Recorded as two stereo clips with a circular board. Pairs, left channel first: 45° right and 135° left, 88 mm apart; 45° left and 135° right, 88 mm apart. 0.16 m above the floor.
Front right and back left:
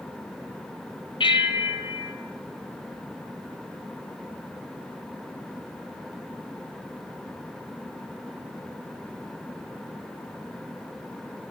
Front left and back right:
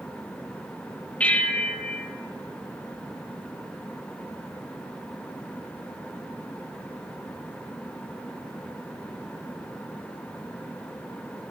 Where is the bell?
30° right, 0.7 m.